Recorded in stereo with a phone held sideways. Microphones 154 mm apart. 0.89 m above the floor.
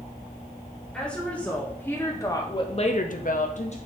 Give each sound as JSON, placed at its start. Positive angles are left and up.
{"t": 0.9, "sound": "a woman speaking", "side_deg": 5, "distance_m": 3.0}